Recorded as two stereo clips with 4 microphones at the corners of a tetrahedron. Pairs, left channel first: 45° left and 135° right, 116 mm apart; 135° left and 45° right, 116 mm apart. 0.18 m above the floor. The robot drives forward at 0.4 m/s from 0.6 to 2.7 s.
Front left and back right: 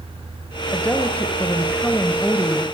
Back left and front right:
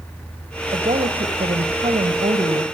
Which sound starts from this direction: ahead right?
A woman speaking, at 0.7 s.